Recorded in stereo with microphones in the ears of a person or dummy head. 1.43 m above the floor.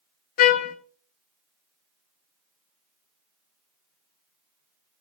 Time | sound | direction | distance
0.4 | a trumpet | 55° left (ahead or behind) | 0.7 m